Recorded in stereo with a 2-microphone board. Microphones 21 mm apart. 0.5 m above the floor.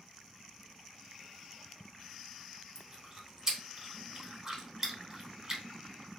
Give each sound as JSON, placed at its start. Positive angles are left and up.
{"t": 2.8, "sound": "chewing", "side_deg": -20, "distance_m": 0.7}